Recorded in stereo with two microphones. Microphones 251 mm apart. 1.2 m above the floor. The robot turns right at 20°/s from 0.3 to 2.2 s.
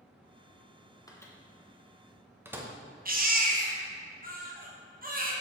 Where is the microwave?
15° left (ahead or behind), 0.7 m; by 2.7 s 10° right (ahead or behind), 0.7 m.